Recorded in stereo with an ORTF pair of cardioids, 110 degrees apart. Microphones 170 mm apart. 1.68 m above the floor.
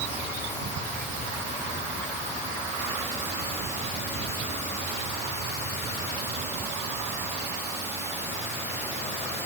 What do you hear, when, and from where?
Only background noise.